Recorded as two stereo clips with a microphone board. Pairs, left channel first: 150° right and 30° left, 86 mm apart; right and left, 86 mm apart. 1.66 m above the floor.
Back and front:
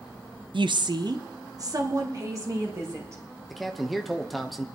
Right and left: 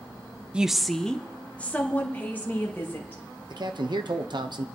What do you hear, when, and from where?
0.5 s a woman speaking: 10° left, 0.5 m; by 3.2 s 25° right, 2.5 m
3.5 s a man speaking: 120° left, 1.1 m